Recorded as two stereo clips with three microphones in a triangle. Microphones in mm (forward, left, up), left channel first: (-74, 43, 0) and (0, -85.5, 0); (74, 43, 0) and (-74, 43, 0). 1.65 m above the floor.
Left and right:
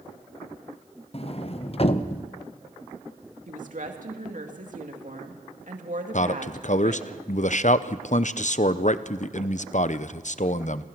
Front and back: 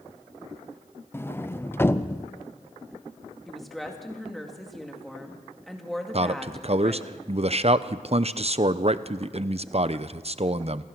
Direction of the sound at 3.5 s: 90° right.